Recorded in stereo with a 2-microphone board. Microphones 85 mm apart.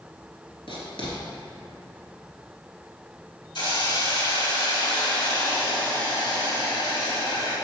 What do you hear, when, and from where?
0.7 s writing: 85° left, 2 m
3.5 s a hiss: 65° left (ahead or behind), 2.5 m